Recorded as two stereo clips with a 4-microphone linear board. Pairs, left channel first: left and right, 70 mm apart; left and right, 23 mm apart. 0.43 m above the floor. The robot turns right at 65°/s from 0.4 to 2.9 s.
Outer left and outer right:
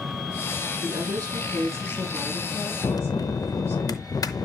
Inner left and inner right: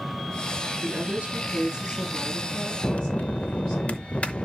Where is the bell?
60° left (ahead or behind), 0.7 m; by 4.5 s 65° left (ahead or behind), 0.7 m.